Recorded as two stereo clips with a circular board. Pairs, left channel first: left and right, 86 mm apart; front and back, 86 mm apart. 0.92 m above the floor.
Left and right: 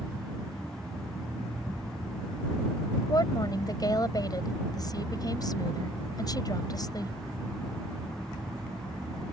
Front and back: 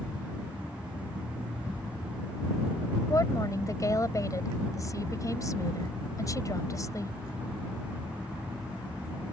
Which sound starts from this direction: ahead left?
A woman speaking, at 3.1 s.